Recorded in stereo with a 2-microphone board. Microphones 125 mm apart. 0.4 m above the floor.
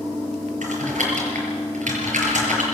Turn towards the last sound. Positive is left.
turn(degrees=-85)